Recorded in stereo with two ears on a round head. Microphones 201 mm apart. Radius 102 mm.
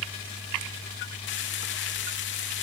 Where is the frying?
45° left (ahead or behind), 3 m.